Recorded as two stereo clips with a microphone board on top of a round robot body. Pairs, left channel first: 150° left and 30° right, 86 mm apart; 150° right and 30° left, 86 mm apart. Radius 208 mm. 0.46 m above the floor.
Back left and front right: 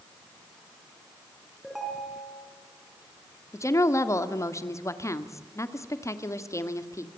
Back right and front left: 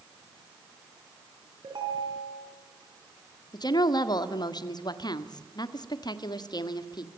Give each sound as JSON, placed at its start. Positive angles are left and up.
{"t": 1.6, "sound": "a ringtone", "azimuth_deg": 60, "distance_m": 6.5}
{"t": 3.5, "sound": "a woman speaking", "azimuth_deg": -165, "distance_m": 2.0}